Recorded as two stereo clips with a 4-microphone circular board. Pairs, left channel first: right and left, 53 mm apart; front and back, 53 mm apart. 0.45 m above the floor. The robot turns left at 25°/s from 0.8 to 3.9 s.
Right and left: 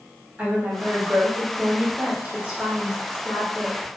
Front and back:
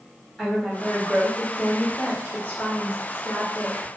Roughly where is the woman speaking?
Left.